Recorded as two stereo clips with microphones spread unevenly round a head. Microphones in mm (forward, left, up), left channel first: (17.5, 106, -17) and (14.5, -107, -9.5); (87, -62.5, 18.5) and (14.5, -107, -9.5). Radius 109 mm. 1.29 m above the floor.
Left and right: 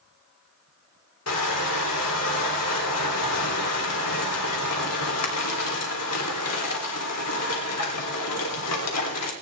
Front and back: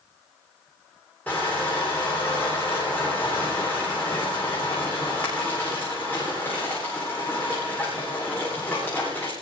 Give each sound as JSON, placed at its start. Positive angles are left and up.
{"t": 1.3, "sound": "crushing", "azimuth_deg": 115, "distance_m": 3.5}